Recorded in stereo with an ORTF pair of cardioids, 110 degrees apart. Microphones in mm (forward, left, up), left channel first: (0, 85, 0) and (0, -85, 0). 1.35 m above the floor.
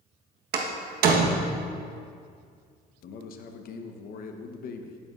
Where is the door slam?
70° right, 1.2 m.